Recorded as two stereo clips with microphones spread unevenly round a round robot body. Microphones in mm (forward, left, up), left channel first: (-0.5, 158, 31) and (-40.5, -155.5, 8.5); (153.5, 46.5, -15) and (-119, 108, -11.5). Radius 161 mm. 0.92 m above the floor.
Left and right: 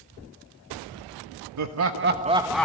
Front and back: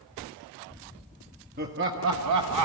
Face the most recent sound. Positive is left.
turn(degrees=170)